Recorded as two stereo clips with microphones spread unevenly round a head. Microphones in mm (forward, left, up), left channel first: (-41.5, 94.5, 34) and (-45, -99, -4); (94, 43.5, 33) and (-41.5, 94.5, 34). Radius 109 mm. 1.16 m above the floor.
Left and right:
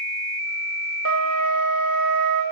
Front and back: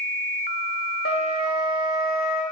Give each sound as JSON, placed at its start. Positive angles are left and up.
{"t": 1.1, "sound": "a flute", "azimuth_deg": -50, "distance_m": 0.9}